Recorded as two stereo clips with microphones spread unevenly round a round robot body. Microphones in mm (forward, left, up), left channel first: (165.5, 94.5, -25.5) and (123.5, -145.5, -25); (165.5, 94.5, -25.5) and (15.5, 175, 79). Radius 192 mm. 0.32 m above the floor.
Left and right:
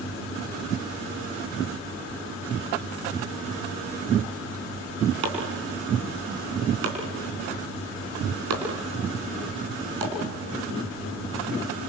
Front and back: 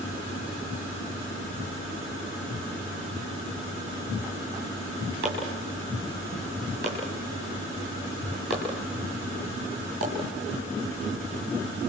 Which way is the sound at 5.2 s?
140° right.